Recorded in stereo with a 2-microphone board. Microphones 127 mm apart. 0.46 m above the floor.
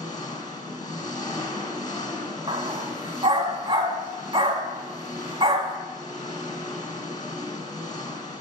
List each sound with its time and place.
0.0 s an engine running: 30° left (ahead or behind), 1.8 m
2.5 s a dog barking: 40° right (ahead or behind), 1.4 m